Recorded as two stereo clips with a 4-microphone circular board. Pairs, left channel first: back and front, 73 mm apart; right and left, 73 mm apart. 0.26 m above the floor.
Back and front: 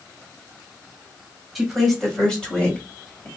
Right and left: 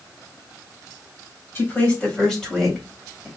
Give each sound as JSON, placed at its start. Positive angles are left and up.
{"t": 1.6, "sound": "a woman speaking", "azimuth_deg": -85, "distance_m": 1.4}